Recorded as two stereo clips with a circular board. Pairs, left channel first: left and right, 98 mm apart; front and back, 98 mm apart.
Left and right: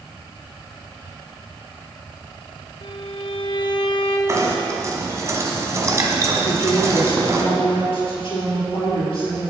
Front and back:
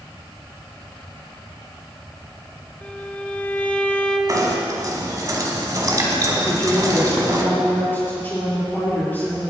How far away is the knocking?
About 1.5 m.